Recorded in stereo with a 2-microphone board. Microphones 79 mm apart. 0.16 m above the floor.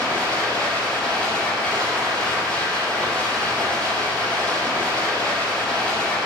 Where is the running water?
10° left (ahead or behind), 2.5 m.